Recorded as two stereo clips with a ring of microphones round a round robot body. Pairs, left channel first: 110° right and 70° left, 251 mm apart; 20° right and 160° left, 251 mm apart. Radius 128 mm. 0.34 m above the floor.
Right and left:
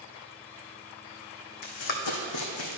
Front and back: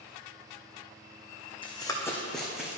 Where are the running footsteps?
95° right, 1.3 m; by 2.8 s 120° right, 1.5 m.